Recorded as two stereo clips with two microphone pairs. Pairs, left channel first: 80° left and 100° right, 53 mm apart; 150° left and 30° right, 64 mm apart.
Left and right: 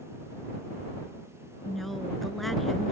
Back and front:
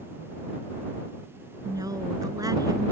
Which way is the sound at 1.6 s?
5° right.